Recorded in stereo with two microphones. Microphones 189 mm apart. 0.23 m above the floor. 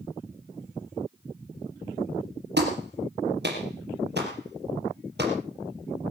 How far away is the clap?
About 4.5 m.